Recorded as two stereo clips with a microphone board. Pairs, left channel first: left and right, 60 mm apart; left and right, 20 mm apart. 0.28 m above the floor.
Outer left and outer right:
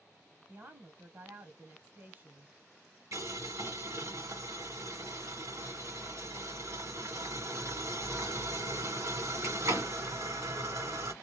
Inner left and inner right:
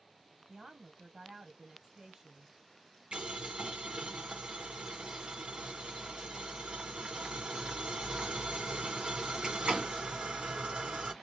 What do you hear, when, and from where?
0.5 s a woman speaking: 35° right (ahead or behind), 1.6 m
3.1 s boiling: 60° right (ahead or behind), 2 m